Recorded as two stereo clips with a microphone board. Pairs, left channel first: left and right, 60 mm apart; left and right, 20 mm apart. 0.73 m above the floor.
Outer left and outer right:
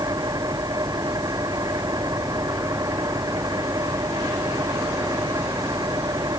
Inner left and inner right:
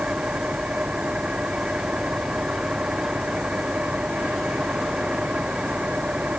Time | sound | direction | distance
0.0 | an engine running | 80° right | ?